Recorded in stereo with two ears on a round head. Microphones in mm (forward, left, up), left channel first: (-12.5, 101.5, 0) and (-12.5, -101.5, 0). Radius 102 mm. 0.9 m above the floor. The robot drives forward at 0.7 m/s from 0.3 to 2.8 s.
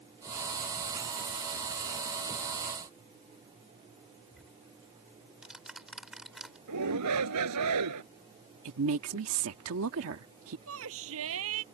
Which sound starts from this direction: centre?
Ticking, at 4.3 s.